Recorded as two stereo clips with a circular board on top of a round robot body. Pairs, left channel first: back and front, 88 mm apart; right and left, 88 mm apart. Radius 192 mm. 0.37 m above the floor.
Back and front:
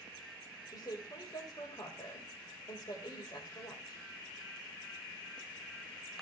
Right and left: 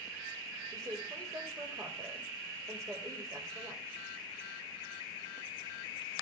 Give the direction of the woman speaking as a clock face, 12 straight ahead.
7 o'clock.